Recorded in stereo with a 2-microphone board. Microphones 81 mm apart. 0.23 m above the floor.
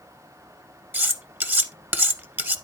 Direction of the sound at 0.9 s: 25° right (ahead or behind).